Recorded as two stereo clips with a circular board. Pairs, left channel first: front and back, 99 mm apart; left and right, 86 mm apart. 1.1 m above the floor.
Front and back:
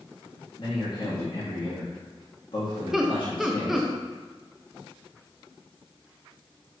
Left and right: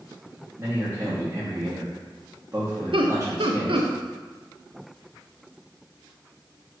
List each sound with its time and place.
0.6 s a man speaking: 30° right, 1.3 m
2.9 s laughter: 95° right, 0.6 m